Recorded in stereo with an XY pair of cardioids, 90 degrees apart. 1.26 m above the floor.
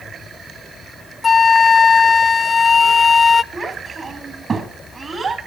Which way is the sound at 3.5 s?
45° right.